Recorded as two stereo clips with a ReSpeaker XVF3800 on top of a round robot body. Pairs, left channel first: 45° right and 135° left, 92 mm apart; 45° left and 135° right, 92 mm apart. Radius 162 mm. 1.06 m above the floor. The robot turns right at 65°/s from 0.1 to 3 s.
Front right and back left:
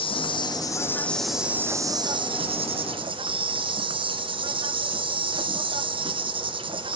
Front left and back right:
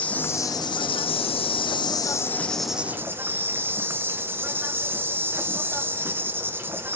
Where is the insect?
30° right, 0.7 m; by 7.0 s 155° left, 0.7 m.